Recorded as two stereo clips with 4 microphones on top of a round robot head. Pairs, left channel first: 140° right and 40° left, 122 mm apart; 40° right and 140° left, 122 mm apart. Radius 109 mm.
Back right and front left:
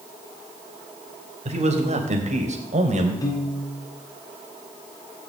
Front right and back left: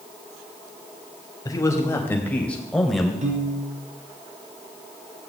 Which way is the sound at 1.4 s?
15° left.